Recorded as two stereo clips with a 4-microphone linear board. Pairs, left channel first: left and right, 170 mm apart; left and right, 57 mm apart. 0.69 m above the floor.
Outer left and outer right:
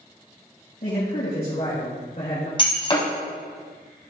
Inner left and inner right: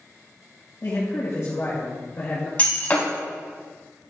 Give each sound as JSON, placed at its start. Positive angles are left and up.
{"t": 0.8, "sound": "a man speaking", "side_deg": 65, "distance_m": 3.5}
{"t": 2.6, "sound": "breaking glass", "side_deg": 30, "distance_m": 2.5}